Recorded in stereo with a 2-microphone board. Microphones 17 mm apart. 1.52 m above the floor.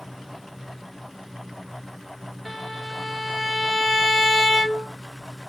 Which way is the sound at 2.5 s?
15° left (ahead or behind).